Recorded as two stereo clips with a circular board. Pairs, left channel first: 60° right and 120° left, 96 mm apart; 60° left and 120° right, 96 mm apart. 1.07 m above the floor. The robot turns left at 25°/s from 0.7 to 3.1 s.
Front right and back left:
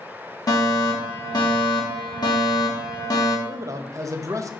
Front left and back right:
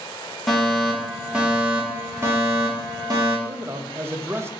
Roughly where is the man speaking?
Behind.